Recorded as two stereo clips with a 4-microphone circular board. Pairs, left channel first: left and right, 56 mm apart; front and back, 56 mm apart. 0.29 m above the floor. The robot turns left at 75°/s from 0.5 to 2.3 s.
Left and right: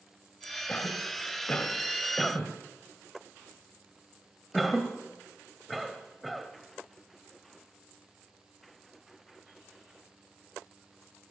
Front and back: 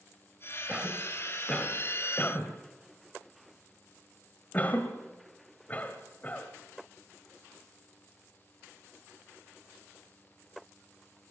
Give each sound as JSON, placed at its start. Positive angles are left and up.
{"t": 0.7, "sound": "a cough", "azimuth_deg": 120, "distance_m": 1.7}